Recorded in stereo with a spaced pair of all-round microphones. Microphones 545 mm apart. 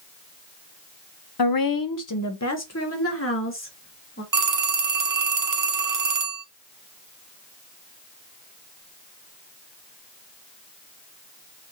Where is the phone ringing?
35° right (ahead or behind), 0.7 m.